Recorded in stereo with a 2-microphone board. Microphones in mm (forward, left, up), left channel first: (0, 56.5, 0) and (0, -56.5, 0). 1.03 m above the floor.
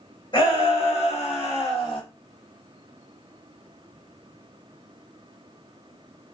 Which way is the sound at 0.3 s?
45° left (ahead or behind).